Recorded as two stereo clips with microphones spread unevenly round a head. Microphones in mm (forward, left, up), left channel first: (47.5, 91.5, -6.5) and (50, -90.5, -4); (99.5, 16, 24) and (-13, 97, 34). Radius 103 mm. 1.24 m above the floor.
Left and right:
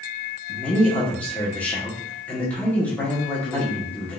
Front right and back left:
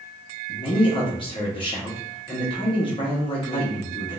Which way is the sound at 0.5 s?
10° left.